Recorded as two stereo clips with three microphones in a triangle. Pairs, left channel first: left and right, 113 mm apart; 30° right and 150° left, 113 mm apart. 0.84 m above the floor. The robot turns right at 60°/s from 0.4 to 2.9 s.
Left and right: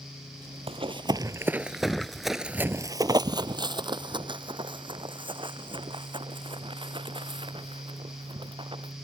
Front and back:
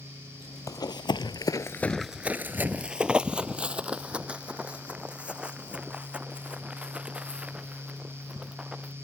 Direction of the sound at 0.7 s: 85° right.